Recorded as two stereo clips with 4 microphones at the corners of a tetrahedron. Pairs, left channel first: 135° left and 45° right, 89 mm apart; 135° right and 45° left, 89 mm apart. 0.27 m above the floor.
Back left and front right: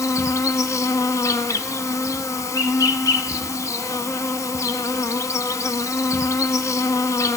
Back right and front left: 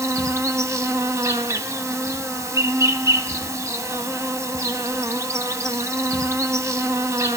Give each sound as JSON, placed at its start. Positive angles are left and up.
{"t": 0.0, "sound": "an insect", "azimuth_deg": 90, "distance_m": 0.9}